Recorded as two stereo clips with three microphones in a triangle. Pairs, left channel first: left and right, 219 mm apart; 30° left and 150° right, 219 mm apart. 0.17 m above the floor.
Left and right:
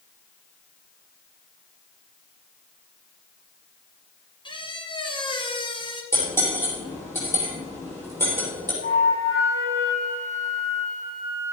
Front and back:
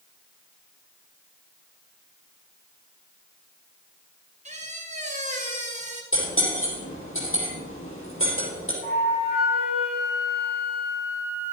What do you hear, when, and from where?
4.5 s a squeak: 155° left, 1.4 m
6.1 s cutlery clinking: 10° left, 4.5 m
8.8 s a flute: 70° left, 3 m